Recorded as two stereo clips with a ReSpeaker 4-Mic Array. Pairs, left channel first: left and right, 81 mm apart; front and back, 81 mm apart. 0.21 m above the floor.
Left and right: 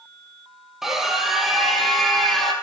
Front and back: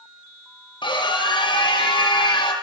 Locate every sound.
0.8 s a scream: 5° right, 6 m; by 2.5 s straight ahead, 7.5 m